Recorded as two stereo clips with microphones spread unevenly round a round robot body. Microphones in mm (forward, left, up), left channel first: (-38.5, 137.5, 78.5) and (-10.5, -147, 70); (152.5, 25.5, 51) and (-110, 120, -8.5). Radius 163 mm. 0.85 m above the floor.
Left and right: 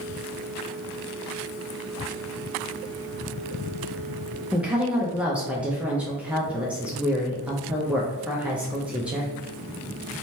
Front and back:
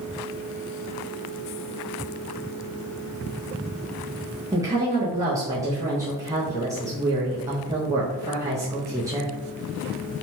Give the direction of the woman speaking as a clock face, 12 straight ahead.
5 o'clock.